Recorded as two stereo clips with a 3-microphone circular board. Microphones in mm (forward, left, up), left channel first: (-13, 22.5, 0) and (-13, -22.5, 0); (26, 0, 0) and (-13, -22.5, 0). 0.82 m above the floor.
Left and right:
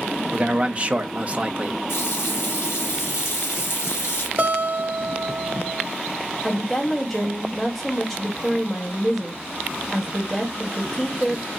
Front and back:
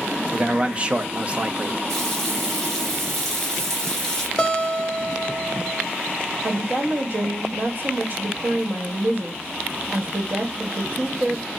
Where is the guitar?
50° right, 1.0 m.